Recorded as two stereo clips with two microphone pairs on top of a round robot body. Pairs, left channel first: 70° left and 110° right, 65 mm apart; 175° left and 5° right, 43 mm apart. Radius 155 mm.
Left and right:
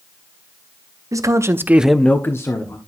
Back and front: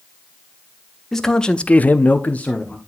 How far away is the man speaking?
About 1.3 m.